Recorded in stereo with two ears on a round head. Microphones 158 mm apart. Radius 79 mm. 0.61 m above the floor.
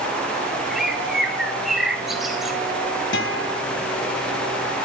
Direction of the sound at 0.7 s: Centre (ahead or behind).